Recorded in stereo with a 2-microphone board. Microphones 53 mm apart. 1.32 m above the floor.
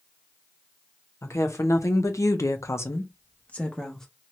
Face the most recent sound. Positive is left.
turn(degrees=10)  # may be behind; listen again after turning